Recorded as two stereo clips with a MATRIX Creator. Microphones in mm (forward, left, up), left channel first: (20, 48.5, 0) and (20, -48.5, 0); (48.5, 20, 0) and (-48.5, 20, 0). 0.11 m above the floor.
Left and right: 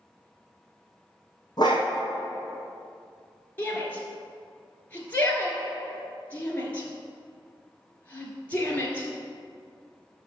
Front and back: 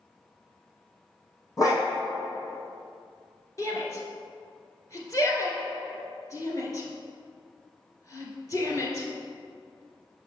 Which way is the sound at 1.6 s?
50° left.